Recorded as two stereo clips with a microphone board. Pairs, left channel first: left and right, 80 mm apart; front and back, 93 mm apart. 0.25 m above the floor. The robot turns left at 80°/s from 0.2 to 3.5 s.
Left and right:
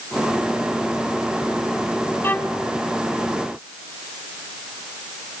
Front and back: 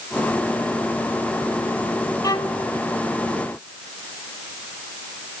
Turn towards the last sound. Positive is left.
turn(degrees=-65)